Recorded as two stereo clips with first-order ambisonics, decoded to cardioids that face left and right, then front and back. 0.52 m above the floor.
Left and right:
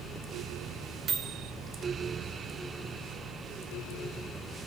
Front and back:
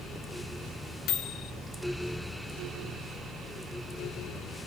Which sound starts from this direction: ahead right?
A microwave, at 1.1 s.